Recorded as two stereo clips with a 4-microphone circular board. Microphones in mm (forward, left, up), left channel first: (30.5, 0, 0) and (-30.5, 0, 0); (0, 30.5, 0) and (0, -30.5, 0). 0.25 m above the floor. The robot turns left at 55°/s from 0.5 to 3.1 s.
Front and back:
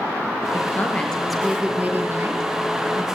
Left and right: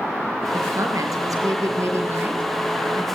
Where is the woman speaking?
45° right, 5 m; by 3.0 s 175° left, 5 m.